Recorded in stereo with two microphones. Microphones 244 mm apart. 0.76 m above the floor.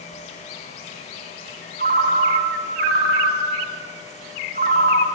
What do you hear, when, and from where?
1.8 s a ringtone: 40° right (ahead or behind), 1.1 m